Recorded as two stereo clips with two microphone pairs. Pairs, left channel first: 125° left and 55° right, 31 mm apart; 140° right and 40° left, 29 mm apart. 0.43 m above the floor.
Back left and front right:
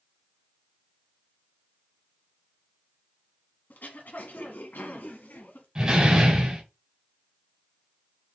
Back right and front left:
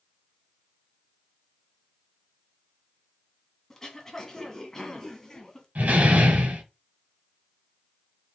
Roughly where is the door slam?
Ahead.